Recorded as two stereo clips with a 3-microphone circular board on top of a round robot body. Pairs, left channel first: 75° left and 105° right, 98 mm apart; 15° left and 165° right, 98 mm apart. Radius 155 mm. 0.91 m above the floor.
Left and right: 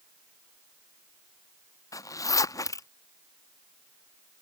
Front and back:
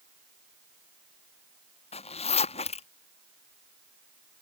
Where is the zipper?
20° left.